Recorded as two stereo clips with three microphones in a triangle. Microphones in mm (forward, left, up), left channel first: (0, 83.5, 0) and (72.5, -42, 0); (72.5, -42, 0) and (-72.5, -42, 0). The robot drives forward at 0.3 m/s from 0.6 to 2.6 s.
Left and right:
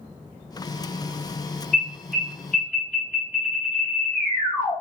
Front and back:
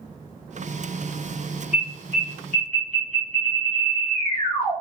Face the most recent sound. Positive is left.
turn(degrees=-160)